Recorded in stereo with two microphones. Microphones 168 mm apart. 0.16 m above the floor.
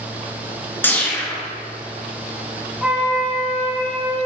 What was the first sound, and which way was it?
A whoosh, 10° left (ahead or behind).